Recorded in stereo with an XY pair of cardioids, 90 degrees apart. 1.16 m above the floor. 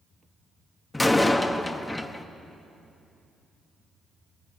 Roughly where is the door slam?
Ahead.